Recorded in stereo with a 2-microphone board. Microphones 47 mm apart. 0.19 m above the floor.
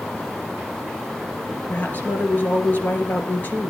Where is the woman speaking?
40° left (ahead or behind), 3 m.